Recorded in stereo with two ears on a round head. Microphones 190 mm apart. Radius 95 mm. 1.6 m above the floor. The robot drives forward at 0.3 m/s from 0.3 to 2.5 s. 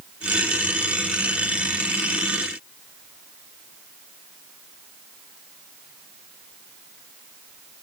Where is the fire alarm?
I don't hear a fire alarm.